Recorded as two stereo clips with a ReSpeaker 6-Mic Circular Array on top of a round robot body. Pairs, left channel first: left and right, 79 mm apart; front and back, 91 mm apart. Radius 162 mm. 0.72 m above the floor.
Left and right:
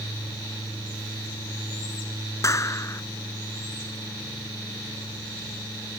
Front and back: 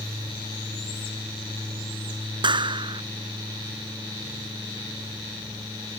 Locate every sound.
2.4 s a clap: 145° left